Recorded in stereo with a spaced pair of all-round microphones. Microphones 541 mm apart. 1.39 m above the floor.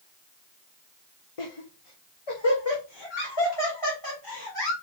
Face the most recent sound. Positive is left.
turn(degrees=45)  # may be behind; listen again after turning